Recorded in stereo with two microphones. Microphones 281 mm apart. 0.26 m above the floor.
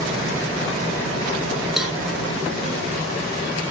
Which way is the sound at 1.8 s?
5° right (ahead or behind).